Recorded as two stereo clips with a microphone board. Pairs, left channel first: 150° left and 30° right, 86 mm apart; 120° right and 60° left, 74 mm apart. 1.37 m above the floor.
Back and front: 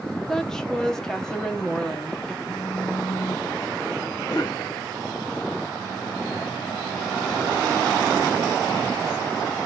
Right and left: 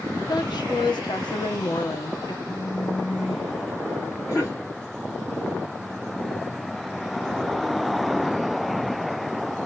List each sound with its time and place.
0.3 s a woman speaking: 130° right, 0.9 m
2.5 s a phone buzzing: 175° right, 1.5 m
4.3 s a cough: 165° right, 2 m